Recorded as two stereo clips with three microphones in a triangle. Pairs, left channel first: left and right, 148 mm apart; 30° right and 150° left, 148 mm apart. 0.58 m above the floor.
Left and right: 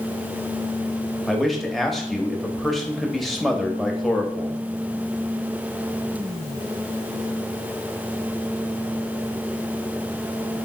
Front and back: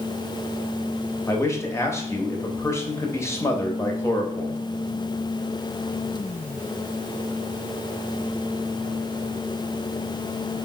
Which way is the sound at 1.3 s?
5° left.